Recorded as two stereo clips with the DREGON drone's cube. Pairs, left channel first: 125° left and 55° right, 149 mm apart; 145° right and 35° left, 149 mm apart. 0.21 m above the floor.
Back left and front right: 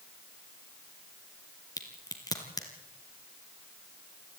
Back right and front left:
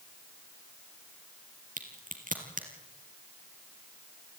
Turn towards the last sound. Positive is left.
turn(degrees=60)